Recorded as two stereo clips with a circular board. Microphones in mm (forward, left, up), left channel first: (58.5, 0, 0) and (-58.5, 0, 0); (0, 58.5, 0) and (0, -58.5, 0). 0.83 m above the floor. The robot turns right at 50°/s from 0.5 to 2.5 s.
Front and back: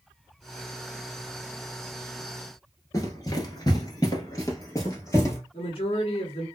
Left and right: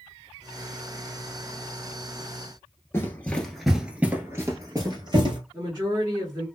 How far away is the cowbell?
I don't hear a cowbell.